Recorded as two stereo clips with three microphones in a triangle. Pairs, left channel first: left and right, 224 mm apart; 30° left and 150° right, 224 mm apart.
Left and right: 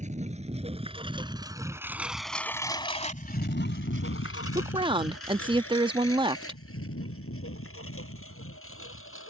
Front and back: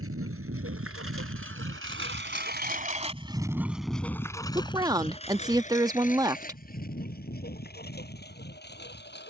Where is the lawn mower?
145° right; by 9.3 s 70° left.